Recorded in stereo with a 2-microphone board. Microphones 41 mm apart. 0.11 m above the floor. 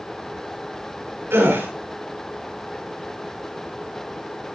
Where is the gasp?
60° right (ahead or behind), 9.5 m.